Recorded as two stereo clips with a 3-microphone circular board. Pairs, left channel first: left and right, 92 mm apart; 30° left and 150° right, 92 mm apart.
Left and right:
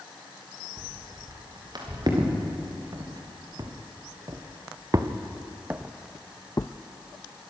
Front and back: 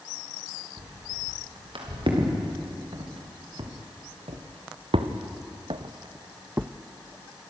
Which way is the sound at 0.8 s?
130° right.